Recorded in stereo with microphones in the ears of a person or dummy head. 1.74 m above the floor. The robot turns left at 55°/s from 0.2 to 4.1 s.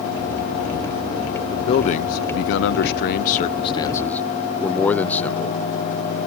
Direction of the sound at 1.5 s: 155° left.